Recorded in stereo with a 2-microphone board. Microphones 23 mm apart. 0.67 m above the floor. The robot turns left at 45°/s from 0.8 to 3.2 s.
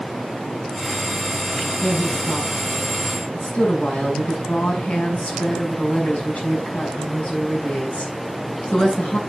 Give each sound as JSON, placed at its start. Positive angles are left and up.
{"t": 1.8, "sound": "a woman speaking", "azimuth_deg": 160, "distance_m": 6.5}